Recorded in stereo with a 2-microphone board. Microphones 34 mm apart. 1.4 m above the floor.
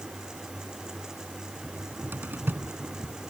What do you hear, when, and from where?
1.6 s a cupboard door: 70° right (ahead or behind)